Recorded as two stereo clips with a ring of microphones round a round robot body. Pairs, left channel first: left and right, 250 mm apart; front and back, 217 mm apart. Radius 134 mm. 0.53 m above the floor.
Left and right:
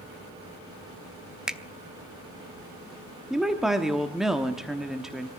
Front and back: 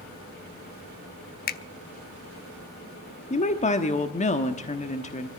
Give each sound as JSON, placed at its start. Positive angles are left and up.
{"t": 1.5, "sound": "a finger snap", "azimuth_deg": -5, "distance_m": 0.8}
{"t": 3.3, "sound": "a woman speaking", "azimuth_deg": -5, "distance_m": 1.1}